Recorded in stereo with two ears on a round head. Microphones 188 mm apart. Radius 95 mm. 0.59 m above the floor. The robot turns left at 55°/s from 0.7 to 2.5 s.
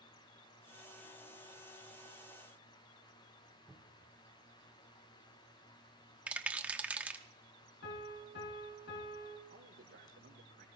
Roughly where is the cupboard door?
Centre.